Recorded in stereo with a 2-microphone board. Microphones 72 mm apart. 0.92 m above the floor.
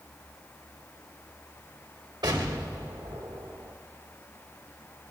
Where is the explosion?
80° right, 1.5 m.